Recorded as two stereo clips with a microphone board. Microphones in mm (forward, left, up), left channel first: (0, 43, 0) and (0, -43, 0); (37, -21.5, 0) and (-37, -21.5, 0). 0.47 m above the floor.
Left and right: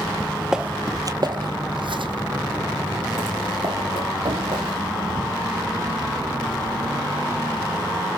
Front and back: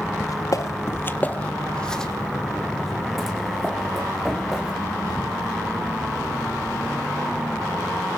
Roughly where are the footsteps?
Ahead.